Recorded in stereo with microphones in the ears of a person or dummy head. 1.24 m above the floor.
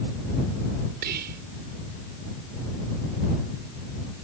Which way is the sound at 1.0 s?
55° right (ahead or behind).